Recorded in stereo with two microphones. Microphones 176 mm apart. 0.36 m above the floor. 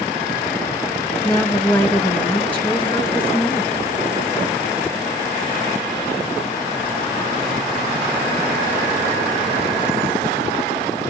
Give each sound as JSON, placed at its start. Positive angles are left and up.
{"t": 1.2, "sound": "a woman speaking", "side_deg": 10, "distance_m": 2.5}